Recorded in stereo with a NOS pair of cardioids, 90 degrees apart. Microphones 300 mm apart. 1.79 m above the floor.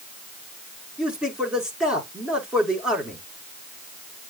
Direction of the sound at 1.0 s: 5° right.